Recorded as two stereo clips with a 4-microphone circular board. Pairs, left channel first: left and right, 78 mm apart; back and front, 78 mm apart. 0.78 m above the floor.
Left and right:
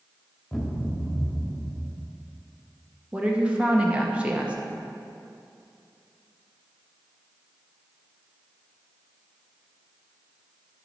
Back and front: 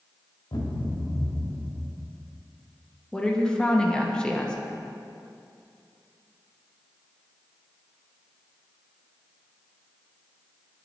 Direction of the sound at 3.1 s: 125° right.